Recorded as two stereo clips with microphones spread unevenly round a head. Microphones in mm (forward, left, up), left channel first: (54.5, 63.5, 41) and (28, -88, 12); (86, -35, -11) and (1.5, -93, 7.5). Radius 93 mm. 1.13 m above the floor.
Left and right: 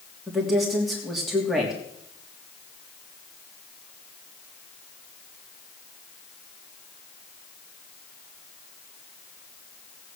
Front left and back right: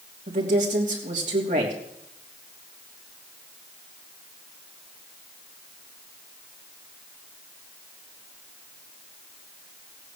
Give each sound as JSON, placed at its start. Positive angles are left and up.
{"t": 0.3, "sound": "a woman speaking", "azimuth_deg": 175, "distance_m": 3.0}